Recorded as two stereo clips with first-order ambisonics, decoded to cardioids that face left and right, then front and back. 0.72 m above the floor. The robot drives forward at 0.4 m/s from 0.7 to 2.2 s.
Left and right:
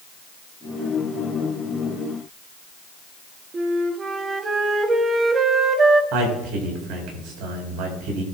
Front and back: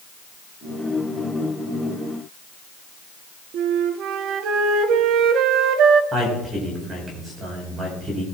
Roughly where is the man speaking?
Right.